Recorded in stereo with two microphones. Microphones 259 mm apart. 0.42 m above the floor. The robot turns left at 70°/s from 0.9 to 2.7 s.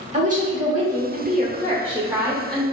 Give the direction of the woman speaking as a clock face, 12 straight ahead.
2 o'clock.